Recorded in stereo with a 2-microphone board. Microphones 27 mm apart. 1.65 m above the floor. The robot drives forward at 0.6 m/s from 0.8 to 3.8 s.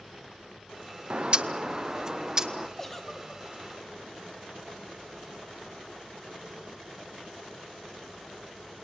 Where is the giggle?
10° left (ahead or behind), 1.7 m; by 3.4 s 15° left (ahead or behind), 1.3 m.